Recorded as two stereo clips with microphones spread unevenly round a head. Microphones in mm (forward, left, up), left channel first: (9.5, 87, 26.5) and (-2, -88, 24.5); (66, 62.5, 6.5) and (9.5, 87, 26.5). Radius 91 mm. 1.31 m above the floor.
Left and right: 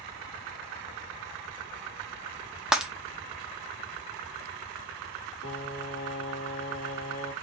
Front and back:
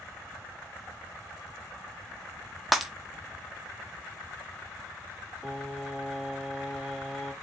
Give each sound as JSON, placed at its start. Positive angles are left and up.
{"t": 2.7, "sound": "breaking glass", "azimuth_deg": 180, "distance_m": 0.8}
{"t": 5.4, "sound": "singing", "azimuth_deg": 75, "distance_m": 2.5}